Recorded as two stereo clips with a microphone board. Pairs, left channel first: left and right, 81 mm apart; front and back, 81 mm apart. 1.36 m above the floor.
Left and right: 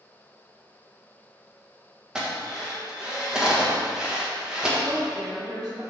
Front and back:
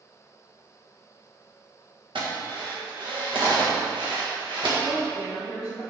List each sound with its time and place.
2.1 s a drill: 175° right, 1.5 m
4.8 s a woman speaking: 55° right, 1.4 m